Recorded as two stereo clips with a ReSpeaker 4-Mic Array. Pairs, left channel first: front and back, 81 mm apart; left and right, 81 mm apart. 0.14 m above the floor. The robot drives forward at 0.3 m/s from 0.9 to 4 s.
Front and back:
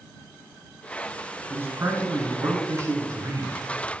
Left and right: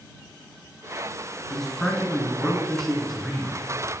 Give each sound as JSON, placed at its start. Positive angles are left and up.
{"t": 1.5, "sound": "a man speaking", "azimuth_deg": 170, "distance_m": 1.4}